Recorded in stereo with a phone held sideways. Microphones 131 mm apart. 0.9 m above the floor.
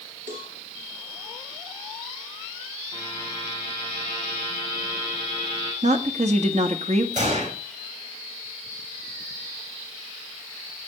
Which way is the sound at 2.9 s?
40° right (ahead or behind).